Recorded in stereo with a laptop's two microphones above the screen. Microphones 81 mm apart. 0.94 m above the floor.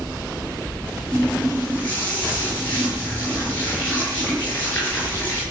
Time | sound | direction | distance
1.1 | a running tap | 25° left (ahead or behind) | 9.5 m